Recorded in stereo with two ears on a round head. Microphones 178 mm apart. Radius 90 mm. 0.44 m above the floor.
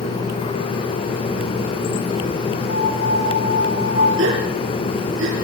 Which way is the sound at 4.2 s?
75° right (ahead or behind).